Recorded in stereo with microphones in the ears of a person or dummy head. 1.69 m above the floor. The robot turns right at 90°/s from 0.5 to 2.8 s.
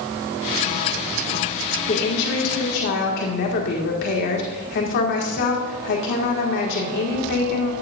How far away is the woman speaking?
About 2.0 m.